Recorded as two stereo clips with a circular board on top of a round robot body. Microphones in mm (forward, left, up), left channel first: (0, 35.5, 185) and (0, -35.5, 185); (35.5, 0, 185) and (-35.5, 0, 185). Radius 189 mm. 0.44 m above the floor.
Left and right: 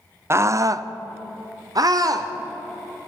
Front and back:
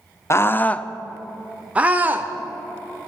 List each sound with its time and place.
0.3 s a scream: 45° right, 1.2 m; by 2.3 s 120° right, 1.9 m